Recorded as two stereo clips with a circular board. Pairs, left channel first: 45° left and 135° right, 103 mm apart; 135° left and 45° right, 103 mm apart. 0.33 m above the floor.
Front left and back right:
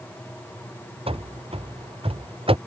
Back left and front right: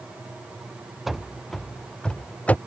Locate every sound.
1.1 s running footsteps: 135° right; by 2.6 s 150° right